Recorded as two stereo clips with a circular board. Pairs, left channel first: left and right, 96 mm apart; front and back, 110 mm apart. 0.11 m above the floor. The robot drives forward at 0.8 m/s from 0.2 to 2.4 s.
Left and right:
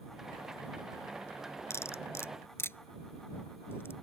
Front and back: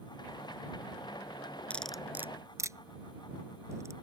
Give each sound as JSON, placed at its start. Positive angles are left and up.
{"t": 1.7, "sound": "cutlery clinking", "azimuth_deg": 65}